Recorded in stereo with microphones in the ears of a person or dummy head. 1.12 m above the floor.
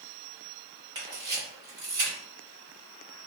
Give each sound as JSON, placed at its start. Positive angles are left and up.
{"t": 0.9, "sound": "a camera shutter", "side_deg": -20, "distance_m": 1.5}